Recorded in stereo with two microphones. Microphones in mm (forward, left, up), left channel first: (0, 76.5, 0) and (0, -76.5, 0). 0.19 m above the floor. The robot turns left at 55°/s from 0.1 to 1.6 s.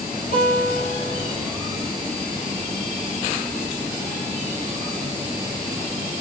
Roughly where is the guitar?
Behind left.